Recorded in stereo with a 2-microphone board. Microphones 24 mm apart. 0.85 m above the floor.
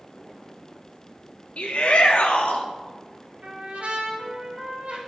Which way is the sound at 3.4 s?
85° right.